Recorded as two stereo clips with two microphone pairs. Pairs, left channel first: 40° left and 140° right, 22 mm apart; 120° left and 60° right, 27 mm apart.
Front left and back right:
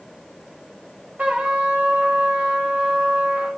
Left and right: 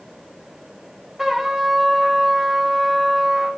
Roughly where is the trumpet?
Behind right.